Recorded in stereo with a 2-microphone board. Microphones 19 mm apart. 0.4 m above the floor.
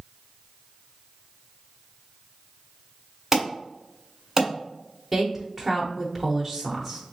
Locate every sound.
3.3 s an alarm: 15° right (ahead or behind), 1.7 m
5.1 s a woman speaking: 5° right (ahead or behind), 0.8 m